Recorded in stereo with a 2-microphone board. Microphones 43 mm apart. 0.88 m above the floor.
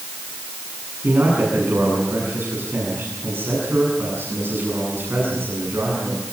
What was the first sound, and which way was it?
A man speaking, 60° right (ahead or behind).